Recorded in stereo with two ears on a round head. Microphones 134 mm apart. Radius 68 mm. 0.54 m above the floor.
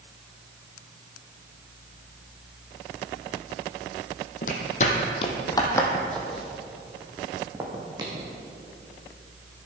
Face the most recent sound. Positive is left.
turn(degrees=-30)  # may be behind; listen again after turning